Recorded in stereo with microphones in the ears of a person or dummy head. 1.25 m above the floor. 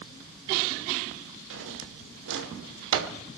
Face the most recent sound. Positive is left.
turn(degrees=-80)